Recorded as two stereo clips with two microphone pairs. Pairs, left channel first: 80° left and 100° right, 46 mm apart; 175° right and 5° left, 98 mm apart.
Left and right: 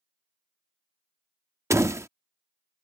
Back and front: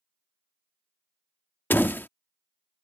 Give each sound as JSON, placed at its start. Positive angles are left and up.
{"t": 1.7, "sound": "a door slam", "azimuth_deg": -105}